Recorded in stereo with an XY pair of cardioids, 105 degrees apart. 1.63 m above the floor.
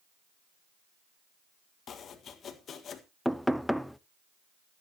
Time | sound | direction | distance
1.9 | chopping | 55° left | 1.7 m
3.2 | knocking | straight ahead | 0.6 m